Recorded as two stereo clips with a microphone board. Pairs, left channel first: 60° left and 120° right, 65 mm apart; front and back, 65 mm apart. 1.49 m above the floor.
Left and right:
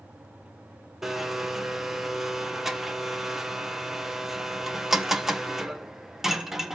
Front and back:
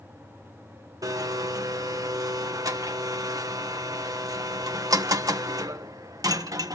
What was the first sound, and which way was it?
A blender, 155° left.